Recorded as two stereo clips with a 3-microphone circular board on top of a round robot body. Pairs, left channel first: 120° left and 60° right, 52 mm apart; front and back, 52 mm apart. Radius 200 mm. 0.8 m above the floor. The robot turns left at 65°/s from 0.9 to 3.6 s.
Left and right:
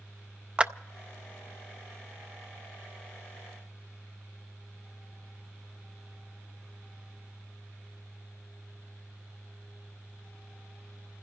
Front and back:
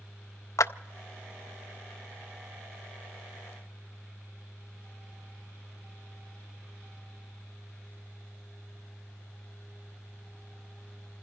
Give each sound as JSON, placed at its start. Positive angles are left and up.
{"t": 0.6, "sound": "a clap", "azimuth_deg": 5, "distance_m": 0.5}